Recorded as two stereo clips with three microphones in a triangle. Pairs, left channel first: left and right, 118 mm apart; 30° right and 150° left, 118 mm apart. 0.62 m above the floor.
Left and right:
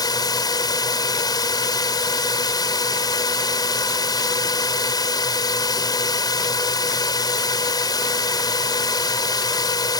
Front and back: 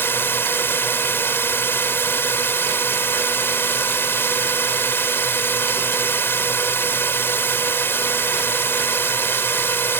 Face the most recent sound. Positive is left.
turn(degrees=40)